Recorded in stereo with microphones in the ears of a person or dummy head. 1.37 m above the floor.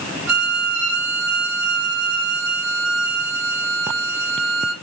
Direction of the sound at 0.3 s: 80° right.